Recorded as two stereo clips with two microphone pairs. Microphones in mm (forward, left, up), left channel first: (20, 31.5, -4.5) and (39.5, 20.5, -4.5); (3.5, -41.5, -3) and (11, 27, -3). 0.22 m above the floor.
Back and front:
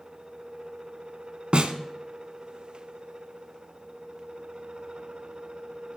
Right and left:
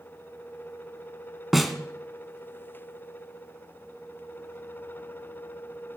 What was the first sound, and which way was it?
A snare drum, 5° right.